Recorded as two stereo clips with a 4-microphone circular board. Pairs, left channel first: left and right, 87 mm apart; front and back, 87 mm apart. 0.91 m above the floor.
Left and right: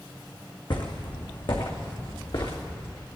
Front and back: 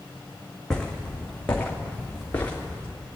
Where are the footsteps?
85° left, 2 m; by 2.9 s 70° left, 3.5 m.